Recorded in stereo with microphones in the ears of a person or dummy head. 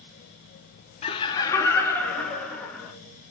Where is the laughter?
30° left (ahead or behind), 0.8 m; by 2.9 s 5° left (ahead or behind), 1.9 m.